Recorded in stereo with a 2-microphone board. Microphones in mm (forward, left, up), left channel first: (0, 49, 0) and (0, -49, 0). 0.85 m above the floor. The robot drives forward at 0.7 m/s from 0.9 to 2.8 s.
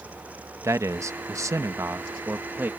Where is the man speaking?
30° right (ahead or behind); by 2.7 s 20° right (ahead or behind).